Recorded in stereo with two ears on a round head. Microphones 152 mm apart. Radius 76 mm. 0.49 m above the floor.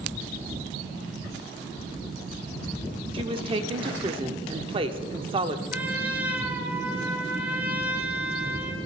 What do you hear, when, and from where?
3.1 s a woman speaking: 30° right (ahead or behind), 1.0 m
5.7 s a trumpet: 10° right (ahead or behind), 2.0 m